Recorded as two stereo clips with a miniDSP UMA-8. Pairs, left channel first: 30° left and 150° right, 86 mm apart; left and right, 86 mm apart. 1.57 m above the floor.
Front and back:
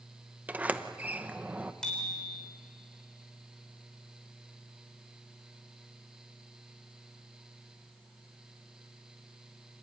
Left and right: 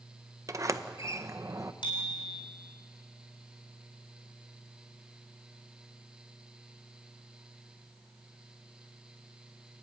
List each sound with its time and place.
0.5 s a sliding door: 90° right, 0.7 m
1.8 s a bicycle bell: 110° left, 4 m